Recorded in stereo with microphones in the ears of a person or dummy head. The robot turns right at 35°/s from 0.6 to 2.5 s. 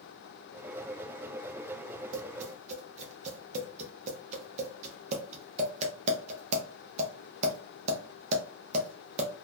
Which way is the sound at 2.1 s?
50° right (ahead or behind).